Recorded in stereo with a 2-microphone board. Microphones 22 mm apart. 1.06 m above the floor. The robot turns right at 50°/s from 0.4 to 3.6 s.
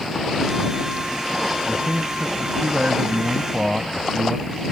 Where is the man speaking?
115° right; by 4.5 s 20° right.